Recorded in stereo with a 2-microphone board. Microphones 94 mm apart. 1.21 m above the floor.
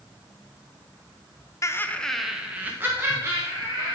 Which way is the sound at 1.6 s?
35° left (ahead or behind).